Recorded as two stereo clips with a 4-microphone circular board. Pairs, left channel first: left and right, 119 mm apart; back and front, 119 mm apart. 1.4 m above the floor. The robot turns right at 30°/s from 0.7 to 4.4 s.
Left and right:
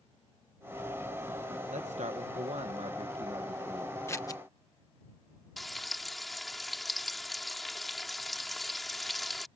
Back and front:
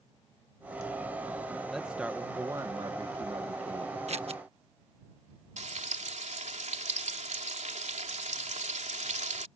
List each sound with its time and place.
1.7 s a man speaking: 90° right; by 4.0 s 20° right
4.1 s scissors: 25° left; by 4.4 s 35° left
5.6 s frying: straight ahead